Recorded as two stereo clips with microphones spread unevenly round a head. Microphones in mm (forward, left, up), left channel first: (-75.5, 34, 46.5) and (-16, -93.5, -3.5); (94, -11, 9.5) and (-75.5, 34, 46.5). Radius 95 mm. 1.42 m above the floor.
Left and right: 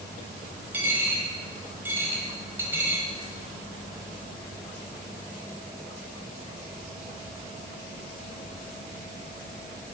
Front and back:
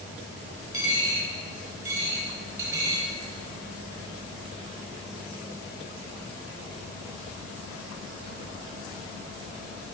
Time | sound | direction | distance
0.7 | a dropped coin | 160° right | 1.4 m